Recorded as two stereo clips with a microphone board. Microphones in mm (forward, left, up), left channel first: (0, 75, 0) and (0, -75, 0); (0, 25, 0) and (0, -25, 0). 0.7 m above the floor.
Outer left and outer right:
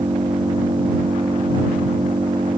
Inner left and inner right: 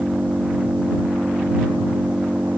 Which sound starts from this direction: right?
An engine running, at 0.0 s.